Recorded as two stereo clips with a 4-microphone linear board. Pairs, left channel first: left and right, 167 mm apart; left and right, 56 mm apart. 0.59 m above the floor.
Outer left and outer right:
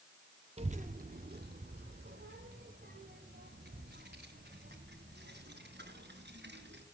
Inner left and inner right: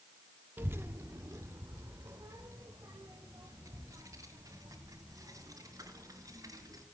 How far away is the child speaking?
About 0.5 m.